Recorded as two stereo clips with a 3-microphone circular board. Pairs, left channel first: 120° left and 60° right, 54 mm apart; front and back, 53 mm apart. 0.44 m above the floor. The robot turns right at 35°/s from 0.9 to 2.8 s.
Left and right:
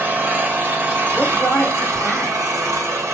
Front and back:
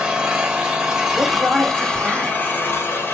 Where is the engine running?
110° right, 0.7 m; by 3.1 s 45° right, 0.7 m.